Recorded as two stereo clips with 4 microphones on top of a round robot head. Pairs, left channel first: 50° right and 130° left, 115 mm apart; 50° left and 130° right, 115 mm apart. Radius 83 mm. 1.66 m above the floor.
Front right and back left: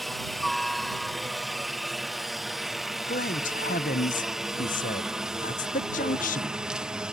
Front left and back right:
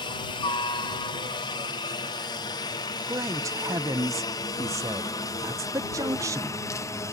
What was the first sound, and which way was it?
A helicopter, 40° left.